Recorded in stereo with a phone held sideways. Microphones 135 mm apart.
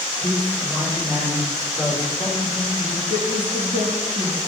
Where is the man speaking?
45° right (ahead or behind), 2 m; by 3.0 s 5° right (ahead or behind), 5 m.